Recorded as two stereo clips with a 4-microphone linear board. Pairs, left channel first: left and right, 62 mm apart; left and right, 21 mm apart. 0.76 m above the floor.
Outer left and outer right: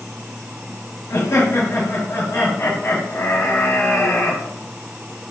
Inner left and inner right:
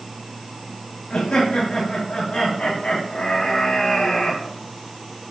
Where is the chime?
No chime in this recording.